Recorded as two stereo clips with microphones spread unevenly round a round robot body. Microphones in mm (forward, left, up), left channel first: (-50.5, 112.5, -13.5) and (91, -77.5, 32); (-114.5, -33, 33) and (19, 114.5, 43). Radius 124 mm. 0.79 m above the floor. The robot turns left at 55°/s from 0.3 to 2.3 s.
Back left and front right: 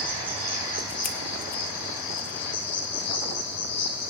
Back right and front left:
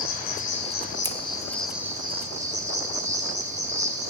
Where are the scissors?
120° left, 1.1 m; by 1.2 s 115° left, 1.1 m.